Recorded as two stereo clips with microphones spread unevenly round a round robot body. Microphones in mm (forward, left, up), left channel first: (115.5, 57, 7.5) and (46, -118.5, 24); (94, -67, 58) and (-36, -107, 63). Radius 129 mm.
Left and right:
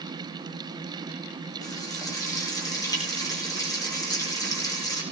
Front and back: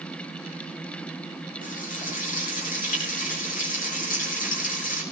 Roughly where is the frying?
Ahead.